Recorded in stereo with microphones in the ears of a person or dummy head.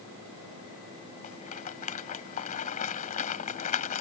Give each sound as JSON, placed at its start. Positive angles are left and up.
{"t": 1.2, "sound": "a rattle", "side_deg": 40}